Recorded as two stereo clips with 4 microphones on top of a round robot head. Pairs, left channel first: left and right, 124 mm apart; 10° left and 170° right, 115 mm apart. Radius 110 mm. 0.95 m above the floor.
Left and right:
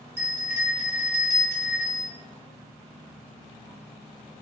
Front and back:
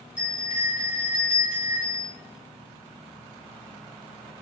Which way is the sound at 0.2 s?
30° right.